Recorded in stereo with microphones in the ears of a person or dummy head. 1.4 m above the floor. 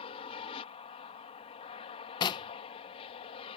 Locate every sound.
0.0 s an aircraft: 30° left (ahead or behind)
2.2 s knocking: 25° left (ahead or behind)